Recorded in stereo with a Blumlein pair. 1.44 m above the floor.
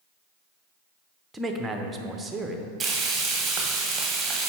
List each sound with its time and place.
1.3 s a man speaking: 10° right, 0.7 m
2.8 s frying: 15° right, 1.1 m